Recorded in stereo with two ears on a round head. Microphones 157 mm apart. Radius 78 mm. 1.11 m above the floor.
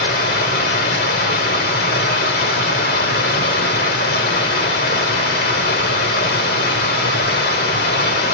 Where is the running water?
65° left (ahead or behind), 1.5 m.